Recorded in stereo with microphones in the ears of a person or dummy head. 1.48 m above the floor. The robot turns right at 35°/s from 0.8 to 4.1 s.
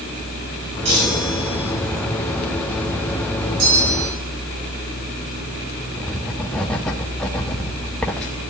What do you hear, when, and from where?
0.8 s a chime: 145° right, 6 m; by 1.7 s 115° right, 6 m
3.6 s a bell: 75° right (ahead or behind), 7.5 m; by 4.2 s 80° right, 7.5 m
6.0 s writing: 5° left (ahead or behind), 0.8 m